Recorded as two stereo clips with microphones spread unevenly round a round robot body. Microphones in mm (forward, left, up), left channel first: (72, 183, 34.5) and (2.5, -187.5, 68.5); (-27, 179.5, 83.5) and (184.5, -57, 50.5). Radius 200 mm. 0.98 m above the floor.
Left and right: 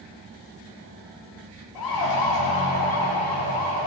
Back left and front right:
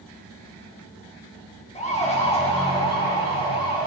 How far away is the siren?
About 3 m.